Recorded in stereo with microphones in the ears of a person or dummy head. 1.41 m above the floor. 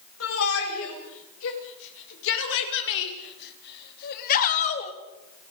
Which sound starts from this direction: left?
A shout, at 0.2 s.